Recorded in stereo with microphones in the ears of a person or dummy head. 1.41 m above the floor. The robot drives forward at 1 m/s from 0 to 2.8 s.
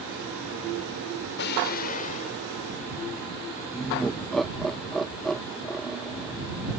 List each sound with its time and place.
1.4 s an explosion: 55° left (ahead or behind); by 2.4 s 35° left (ahead or behind)
3.7 s laughter: 5° left (ahead or behind)